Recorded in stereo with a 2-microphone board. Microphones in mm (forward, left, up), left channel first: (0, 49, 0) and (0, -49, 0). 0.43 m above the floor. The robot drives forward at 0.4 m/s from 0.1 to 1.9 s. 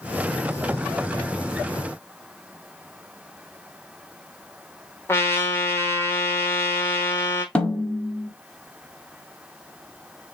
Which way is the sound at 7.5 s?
15° left (ahead or behind).